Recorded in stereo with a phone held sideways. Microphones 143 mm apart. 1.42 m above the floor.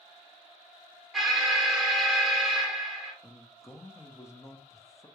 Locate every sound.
1.1 s an alarm: centre (ahead or behind), 0.9 m
3.2 s a man speaking: 20° left (ahead or behind), 0.6 m